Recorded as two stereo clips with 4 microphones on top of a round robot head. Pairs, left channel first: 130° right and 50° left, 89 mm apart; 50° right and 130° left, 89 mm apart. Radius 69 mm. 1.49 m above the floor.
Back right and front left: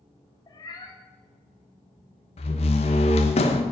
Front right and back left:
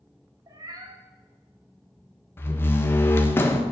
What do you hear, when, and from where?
0.5 s a cat meowing: straight behind, 1.9 m
2.4 s a door slam: 115° right, 1.2 m